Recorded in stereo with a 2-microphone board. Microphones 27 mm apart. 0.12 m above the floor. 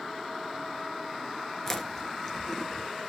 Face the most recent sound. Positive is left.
turn(degrees=10)  # may be behind; listen again after turning